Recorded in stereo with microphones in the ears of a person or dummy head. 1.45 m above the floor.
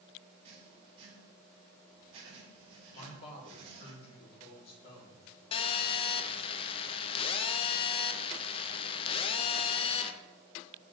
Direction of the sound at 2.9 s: 35° left (ahead or behind).